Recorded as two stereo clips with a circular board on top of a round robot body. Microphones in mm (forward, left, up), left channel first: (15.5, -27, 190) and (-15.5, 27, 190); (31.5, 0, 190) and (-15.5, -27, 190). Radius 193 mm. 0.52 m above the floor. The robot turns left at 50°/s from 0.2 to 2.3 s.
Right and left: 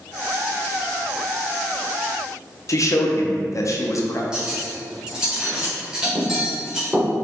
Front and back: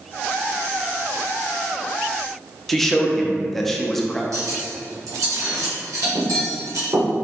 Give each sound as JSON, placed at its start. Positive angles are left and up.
{"t": 2.7, "sound": "a man speaking", "azimuth_deg": -55, "distance_m": 0.9}
{"t": 4.3, "sound": "cutlery clinking", "azimuth_deg": -165, "distance_m": 1.5}